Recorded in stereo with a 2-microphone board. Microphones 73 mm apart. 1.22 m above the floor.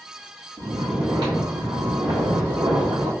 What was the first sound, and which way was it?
Snoring, 80° right.